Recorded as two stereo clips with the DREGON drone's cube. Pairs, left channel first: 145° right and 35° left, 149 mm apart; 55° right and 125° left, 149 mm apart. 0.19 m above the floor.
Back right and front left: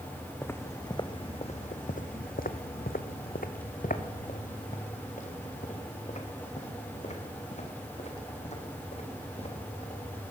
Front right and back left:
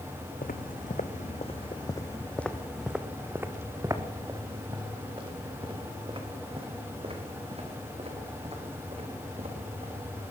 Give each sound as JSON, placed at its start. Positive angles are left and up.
{"t": 0.4, "sound": "footsteps", "azimuth_deg": -70, "distance_m": 1.2}